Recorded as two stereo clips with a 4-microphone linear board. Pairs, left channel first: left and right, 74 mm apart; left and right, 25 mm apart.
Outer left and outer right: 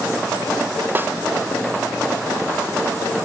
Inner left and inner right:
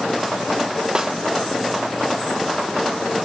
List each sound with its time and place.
0.9 s a snare drum: 30° right (ahead or behind), 0.7 m